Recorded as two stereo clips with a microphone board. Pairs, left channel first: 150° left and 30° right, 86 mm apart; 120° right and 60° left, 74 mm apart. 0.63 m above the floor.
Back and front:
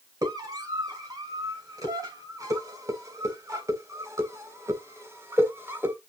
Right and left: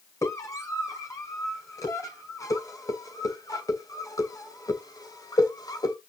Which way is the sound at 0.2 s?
75° right.